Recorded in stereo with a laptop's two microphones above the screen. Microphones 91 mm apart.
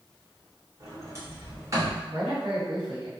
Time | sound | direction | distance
0.8 | a sliding door | 35° right (ahead or behind) | 0.7 m
2.1 | a man speaking | 75° right (ahead or behind) | 1.6 m